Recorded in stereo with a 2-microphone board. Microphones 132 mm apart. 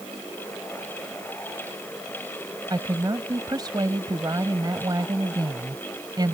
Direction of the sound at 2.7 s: 30° right (ahead or behind).